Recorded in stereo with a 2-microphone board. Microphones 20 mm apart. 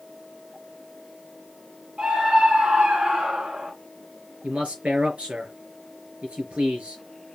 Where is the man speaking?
75° right (ahead or behind), 4 m.